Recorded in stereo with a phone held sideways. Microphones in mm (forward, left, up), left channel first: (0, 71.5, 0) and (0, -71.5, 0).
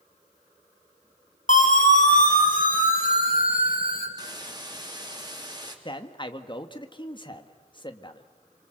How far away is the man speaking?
About 1.8 m.